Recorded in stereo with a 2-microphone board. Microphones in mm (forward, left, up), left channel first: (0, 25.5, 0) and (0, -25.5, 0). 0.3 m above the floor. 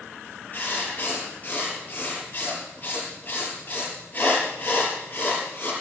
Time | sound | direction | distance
0.5 | writing | 35° left (ahead or behind) | 4.5 m